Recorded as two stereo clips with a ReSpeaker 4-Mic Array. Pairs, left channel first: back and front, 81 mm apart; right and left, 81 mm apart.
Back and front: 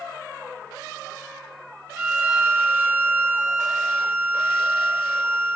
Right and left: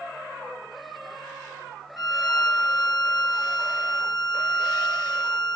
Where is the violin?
60° right, 1.3 m.